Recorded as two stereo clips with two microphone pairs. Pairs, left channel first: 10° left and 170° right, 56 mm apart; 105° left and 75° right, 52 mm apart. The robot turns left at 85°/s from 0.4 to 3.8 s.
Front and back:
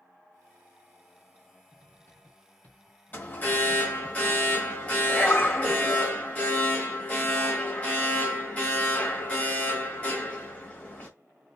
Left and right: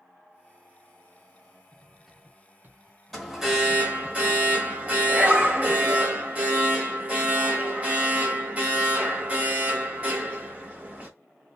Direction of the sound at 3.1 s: 20° left.